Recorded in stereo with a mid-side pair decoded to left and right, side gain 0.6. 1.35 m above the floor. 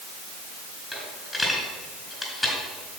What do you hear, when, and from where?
0.9 s a dropped coin: 10° left, 4 m